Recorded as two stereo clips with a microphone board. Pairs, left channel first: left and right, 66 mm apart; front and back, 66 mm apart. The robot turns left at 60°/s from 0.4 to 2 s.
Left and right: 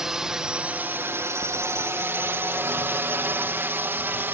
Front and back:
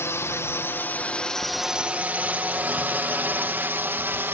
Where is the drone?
10° right; by 4.4 s 135° right.